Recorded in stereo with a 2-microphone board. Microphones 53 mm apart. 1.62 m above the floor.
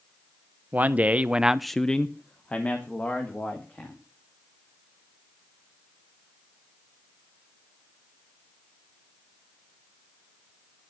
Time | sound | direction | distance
0.7 | a man speaking | 30° right (ahead or behind) | 1.0 m